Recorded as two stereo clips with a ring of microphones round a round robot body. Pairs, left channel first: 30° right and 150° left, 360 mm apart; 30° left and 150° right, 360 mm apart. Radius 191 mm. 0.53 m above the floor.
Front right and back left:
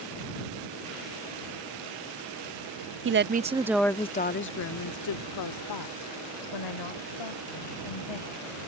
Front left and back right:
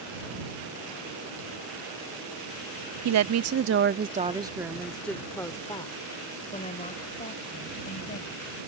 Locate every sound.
3.0 s a woman speaking: 170° right; by 8.6 s 35° right